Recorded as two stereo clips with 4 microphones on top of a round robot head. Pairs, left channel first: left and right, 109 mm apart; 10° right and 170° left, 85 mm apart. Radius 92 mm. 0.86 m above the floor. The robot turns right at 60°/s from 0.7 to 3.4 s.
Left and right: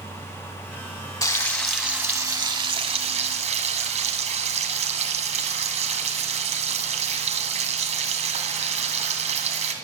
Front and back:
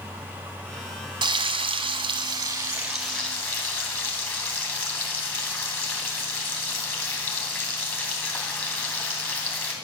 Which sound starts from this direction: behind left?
Frying, at 1.2 s.